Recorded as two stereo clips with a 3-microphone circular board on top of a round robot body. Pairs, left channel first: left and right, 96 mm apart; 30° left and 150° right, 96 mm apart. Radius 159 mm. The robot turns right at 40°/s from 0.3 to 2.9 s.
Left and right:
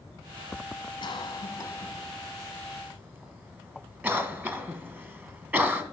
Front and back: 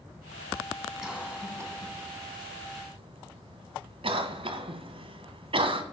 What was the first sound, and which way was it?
A cough, 125° left.